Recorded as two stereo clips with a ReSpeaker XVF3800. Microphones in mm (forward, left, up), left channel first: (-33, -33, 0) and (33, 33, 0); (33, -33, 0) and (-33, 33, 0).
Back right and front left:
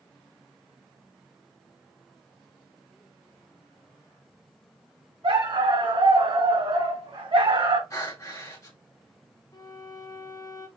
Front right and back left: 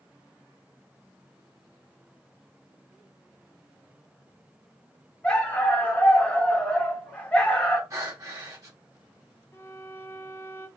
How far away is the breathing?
About 1.3 m.